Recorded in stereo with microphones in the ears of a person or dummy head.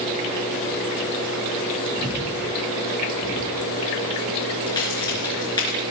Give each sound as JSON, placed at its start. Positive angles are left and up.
{"t": 2.0, "sound": "breathing", "side_deg": -55, "distance_m": 3.0}
{"t": 4.7, "sound": "a crack", "side_deg": 20, "distance_m": 4.0}